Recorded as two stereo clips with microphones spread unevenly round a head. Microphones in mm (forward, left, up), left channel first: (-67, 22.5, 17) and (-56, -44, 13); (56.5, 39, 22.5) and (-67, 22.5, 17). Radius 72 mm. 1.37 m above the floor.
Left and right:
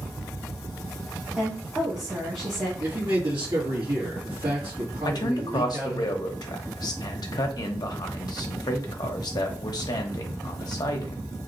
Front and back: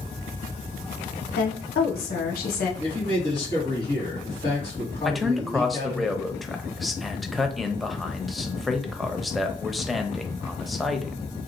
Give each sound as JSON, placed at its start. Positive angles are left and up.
{"t": 1.4, "sound": "a woman speaking", "azimuth_deg": 10, "distance_m": 0.9}
{"t": 2.8, "sound": "a man speaking", "azimuth_deg": -50, "distance_m": 2.0}
{"t": 5.0, "sound": "a man speaking", "azimuth_deg": 100, "distance_m": 0.7}